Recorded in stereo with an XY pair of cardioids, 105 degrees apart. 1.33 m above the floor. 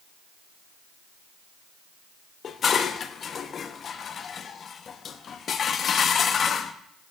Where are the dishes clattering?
50° left, 1.2 m.